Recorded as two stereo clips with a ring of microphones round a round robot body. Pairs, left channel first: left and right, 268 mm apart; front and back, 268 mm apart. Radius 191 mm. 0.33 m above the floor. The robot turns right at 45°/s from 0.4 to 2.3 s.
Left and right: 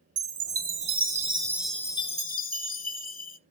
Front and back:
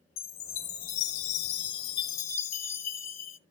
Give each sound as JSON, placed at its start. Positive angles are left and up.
{"t": 0.2, "sound": "a chime", "azimuth_deg": -55, "distance_m": 1.1}